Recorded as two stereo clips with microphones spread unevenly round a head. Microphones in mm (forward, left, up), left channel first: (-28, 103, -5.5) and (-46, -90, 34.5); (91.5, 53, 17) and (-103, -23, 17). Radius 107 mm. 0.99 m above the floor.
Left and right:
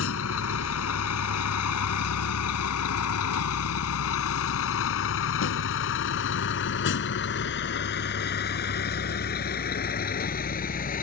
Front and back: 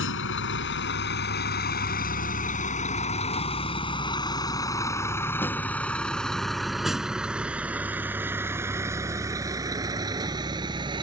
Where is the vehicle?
50° left; by 11.0 s 130° left.